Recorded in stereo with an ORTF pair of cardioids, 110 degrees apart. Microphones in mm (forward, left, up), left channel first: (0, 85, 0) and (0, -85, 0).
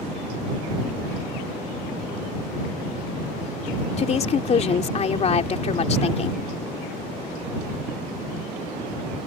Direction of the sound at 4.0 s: 40° left.